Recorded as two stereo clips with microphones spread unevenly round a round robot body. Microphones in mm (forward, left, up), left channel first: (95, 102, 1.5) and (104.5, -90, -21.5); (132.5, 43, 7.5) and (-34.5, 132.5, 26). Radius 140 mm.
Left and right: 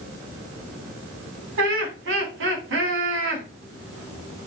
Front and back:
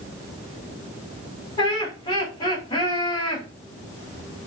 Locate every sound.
1.6 s laughter: 100° right, 2 m